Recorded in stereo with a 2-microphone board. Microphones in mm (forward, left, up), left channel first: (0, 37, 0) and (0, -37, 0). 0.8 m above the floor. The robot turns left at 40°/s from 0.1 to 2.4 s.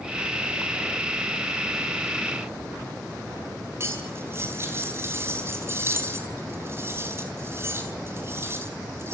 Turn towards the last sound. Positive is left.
turn(degrees=-35)  # may be behind; listen again after turning